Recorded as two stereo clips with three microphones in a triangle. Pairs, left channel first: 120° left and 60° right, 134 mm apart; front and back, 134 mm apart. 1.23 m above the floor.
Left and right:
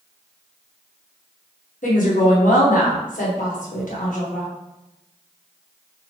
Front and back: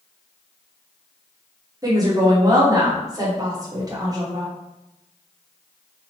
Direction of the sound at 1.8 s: 120° left.